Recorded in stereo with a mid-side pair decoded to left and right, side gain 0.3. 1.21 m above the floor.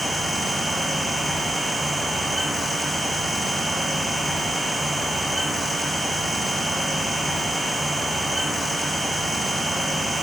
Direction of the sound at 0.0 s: 35° right.